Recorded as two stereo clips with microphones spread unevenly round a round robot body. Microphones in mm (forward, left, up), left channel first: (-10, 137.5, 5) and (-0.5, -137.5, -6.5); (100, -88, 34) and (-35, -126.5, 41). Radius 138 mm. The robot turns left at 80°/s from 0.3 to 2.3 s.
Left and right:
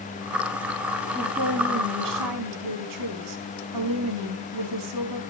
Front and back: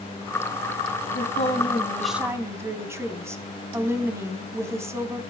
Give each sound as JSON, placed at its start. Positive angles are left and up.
{"t": 1.1, "sound": "a woman speaking", "azimuth_deg": 0, "distance_m": 3.5}